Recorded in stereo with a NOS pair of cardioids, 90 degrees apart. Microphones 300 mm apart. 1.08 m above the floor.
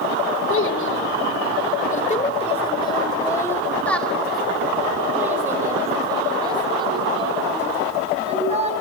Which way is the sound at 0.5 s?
45° left.